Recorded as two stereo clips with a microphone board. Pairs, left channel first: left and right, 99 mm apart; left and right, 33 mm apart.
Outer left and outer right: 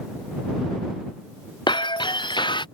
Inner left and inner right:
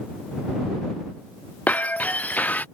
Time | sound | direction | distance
1.7 | breaking glass | 50° left (ahead or behind) | ?